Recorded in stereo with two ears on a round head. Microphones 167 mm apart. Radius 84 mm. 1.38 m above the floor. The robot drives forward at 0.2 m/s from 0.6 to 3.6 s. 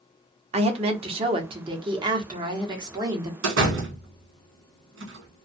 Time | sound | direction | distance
0.5 | a woman speaking | 35° right (ahead or behind) | 0.8 m
3.4 | a door slam | 75° right (ahead or behind) | 1.1 m